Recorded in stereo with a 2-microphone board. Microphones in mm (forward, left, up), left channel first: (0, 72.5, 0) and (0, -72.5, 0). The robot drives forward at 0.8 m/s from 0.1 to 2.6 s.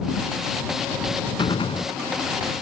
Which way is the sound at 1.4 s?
30° left (ahead or behind).